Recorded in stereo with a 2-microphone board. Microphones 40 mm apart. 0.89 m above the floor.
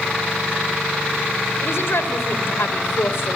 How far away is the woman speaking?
About 3.5 m.